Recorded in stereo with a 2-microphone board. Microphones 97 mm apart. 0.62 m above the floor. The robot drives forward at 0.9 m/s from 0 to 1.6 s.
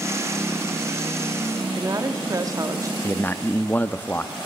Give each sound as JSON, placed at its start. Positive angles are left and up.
{"t": 1.6, "sound": "a woman speaking", "side_deg": -35, "distance_m": 1.1}
{"t": 3.0, "sound": "a man speaking", "side_deg": 20, "distance_m": 0.5}